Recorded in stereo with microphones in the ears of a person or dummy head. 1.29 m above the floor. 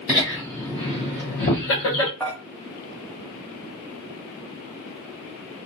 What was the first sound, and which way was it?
Laughter, 5° right (ahead or behind).